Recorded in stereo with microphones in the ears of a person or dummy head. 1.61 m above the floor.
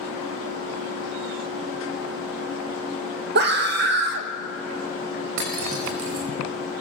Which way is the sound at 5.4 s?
65° right (ahead or behind).